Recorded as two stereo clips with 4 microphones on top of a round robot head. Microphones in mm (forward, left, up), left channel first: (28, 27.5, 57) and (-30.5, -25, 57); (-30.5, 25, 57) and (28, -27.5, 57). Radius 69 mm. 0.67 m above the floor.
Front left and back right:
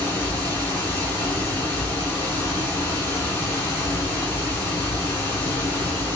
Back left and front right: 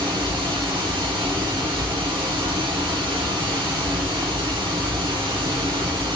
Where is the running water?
20° right, 1.6 m.